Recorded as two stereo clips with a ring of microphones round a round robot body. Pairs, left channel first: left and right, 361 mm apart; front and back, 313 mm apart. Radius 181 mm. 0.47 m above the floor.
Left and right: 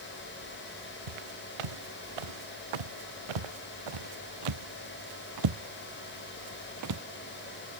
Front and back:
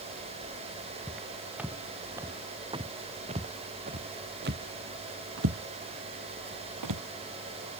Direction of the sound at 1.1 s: 90° right.